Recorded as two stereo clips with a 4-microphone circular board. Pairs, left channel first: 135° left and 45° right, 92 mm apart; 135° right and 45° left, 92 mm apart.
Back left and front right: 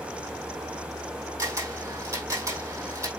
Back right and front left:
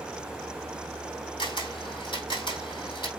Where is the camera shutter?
100° right, 3.5 m.